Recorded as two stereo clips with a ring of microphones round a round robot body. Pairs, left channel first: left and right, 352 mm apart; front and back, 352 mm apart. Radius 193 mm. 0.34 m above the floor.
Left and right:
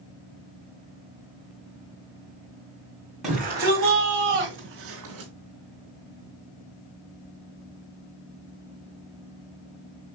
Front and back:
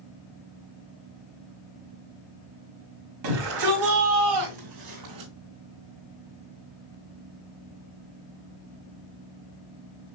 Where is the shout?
Straight behind, 2.0 m; by 5.3 s 140° right, 2.5 m.